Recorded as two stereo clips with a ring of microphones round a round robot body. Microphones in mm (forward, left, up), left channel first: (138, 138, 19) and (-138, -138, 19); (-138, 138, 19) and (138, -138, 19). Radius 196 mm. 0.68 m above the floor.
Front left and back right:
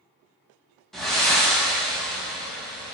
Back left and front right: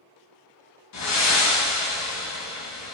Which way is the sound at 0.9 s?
135° left.